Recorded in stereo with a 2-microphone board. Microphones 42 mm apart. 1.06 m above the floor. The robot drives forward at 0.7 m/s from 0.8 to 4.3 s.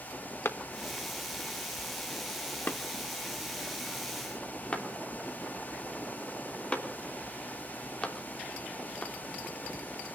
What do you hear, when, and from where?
0.5 s a clap: 75° left (ahead or behind), 1.2 m; by 9.1 s 25° left (ahead or behind), 2.5 m